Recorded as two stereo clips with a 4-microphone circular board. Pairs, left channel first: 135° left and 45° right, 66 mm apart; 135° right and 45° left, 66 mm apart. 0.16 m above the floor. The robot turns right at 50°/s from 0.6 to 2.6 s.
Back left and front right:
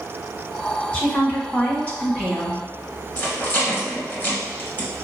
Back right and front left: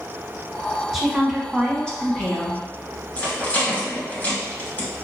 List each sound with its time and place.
0.9 s a woman speaking: 125° left, 1.2 m; by 2.6 s 150° right, 1.2 m
3.2 s a rattle: straight behind, 1.4 m